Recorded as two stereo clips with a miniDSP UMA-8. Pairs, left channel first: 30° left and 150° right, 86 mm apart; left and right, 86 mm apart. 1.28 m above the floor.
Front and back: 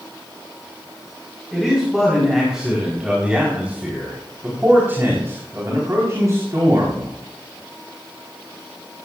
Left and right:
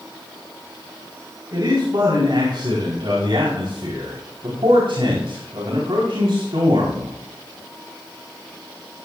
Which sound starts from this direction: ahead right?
A man speaking, at 1.5 s.